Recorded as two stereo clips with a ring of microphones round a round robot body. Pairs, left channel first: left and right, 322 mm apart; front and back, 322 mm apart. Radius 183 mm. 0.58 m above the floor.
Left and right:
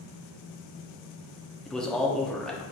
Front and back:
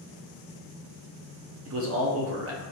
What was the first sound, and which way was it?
A man speaking, 175° left.